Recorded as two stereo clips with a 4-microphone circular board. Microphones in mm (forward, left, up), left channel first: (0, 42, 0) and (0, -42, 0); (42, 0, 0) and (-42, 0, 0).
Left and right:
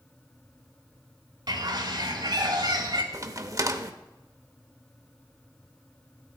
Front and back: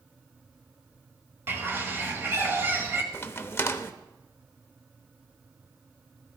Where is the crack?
55° right, 0.7 m.